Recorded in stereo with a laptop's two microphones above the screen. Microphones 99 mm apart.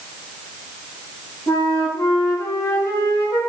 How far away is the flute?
About 4 m.